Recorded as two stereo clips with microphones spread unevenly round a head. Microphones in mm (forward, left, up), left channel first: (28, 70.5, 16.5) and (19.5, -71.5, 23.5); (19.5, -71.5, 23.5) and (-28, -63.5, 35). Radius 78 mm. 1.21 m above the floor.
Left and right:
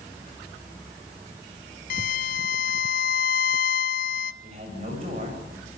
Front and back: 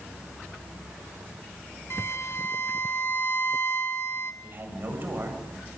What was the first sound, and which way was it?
A violin, 70° left.